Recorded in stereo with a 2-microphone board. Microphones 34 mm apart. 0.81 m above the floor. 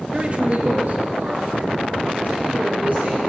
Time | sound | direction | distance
0.1 | a man speaking | 30° right (ahead or behind) | 0.8 m